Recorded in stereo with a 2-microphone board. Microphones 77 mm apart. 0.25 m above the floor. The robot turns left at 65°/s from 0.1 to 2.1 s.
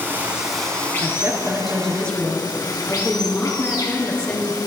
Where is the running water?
150° right, 2.0 m; by 4.7 s 80° left, 2.0 m.